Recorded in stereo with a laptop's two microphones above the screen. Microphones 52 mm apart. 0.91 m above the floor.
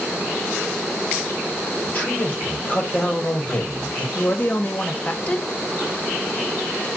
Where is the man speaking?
35° left (ahead or behind), 1.2 m.